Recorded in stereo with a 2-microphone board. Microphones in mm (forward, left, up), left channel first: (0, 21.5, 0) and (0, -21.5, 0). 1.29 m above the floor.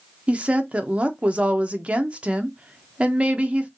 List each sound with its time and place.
0.3 s a woman speaking: 30° right (ahead or behind), 0.9 m